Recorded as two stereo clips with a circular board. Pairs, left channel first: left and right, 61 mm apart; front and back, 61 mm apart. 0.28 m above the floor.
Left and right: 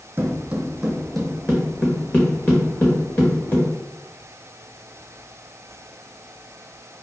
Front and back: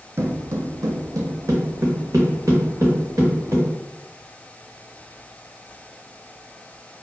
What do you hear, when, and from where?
0.2 s footsteps: 140° right, 0.6 m; by 3.7 s 145° left, 1.9 m